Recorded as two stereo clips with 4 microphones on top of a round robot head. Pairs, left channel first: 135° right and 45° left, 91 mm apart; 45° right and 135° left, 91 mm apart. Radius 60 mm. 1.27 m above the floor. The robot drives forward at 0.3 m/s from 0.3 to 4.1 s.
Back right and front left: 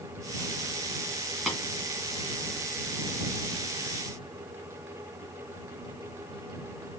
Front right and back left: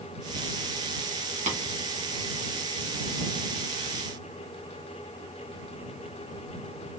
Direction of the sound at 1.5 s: 130° left.